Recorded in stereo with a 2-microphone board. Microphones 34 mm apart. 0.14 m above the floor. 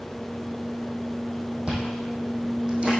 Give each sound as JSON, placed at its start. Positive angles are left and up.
{"t": 1.7, "sound": "chewing", "side_deg": -35, "distance_m": 2.5}